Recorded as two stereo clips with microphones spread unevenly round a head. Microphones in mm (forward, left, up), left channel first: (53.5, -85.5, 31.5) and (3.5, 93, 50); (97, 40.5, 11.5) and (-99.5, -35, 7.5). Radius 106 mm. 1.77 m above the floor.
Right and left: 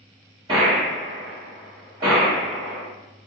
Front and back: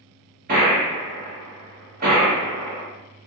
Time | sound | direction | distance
0.5 | a gunshot | 165° left | 1.5 m